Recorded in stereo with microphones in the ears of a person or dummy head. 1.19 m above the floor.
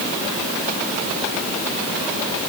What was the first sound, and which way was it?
Only background noise.